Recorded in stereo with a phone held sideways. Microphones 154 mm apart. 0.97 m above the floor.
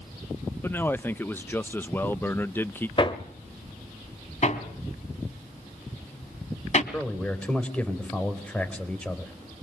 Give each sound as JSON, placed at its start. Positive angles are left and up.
{"t": 0.6, "sound": "a man speaking", "side_deg": 15, "distance_m": 0.8}
{"t": 3.0, "sound": "hammering", "side_deg": 35, "distance_m": 1.6}
{"t": 4.4, "sound": "hammering", "side_deg": 50, "distance_m": 2.5}
{"t": 6.9, "sound": "a man speaking", "side_deg": 10, "distance_m": 4.5}